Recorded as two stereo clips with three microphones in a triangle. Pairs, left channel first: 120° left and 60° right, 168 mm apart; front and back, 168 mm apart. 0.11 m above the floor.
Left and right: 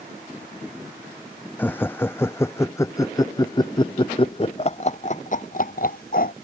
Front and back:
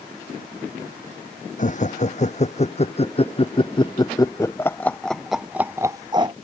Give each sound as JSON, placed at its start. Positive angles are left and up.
{"t": 1.6, "sound": "laughter", "azimuth_deg": 40}